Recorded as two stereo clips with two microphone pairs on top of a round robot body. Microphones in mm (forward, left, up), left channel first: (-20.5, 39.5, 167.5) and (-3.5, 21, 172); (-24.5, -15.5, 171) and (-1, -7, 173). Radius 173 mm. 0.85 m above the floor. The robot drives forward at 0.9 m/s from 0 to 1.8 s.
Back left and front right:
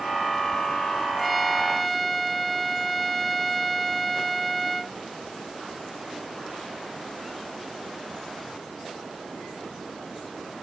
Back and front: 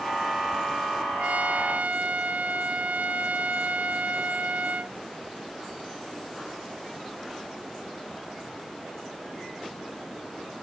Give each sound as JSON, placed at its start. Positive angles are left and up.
{"t": 1.2, "sound": "a trumpet", "azimuth_deg": 40}